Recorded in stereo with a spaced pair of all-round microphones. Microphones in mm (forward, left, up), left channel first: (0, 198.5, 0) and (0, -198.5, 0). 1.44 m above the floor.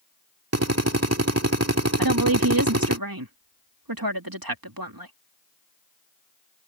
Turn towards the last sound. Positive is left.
turn(degrees=-60)  # may be behind; listen again after turning